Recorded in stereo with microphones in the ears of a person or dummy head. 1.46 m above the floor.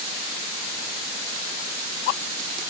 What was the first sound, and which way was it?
Only background noise.